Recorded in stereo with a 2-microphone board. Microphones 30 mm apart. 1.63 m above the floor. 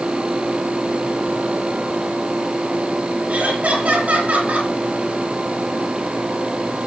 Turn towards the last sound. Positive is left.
turn(degrees=-60)  # may be behind; listen again after turning